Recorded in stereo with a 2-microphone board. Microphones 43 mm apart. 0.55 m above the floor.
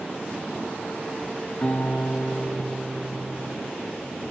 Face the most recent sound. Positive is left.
turn(degrees=35)  # may be behind; listen again after turning